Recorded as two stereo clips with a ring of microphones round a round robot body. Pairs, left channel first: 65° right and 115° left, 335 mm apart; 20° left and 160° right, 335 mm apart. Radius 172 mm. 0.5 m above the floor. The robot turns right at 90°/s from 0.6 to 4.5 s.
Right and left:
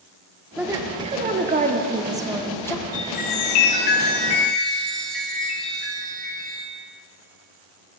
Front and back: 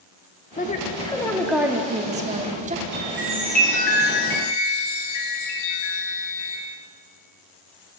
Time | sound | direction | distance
0.6 | a woman speaking | 35° left | 0.9 m
2.9 | a chime | 120° right | 2.5 m